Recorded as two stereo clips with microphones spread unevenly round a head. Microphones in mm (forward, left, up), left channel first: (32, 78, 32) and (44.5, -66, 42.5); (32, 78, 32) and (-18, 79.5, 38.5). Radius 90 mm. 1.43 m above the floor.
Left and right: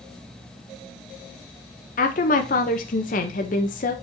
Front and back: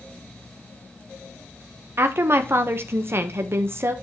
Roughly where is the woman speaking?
Behind left.